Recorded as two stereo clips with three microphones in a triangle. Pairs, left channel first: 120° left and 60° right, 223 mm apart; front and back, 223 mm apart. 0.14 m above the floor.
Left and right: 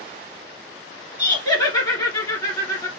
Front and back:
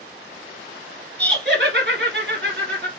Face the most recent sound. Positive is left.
turn(degrees=-170)